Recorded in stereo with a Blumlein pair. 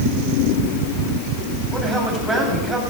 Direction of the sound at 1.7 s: 10° right.